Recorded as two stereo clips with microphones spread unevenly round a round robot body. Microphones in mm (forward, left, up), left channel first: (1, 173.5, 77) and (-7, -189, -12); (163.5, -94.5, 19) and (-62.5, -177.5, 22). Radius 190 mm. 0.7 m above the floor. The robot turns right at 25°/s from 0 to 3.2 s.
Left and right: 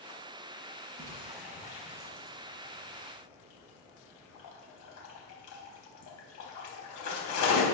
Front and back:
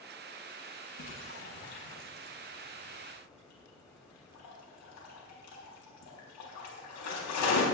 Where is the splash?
10° right, 4 m; by 7.6 s 45° left, 4 m.